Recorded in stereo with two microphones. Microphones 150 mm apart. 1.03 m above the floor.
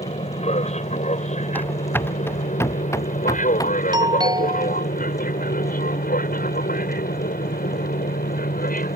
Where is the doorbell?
30° right (ahead or behind).